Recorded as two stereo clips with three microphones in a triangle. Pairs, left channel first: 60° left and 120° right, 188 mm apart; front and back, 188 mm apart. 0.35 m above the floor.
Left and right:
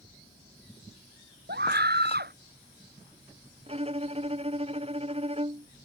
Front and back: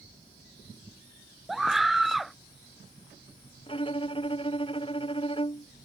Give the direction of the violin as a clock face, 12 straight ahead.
2 o'clock.